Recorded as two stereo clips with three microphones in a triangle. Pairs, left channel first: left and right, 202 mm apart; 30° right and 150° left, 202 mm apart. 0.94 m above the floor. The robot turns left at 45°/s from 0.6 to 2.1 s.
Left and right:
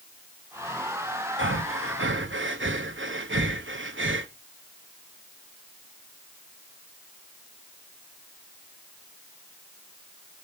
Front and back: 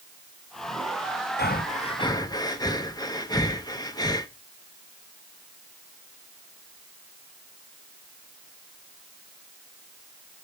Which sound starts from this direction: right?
Breathing, at 1.4 s.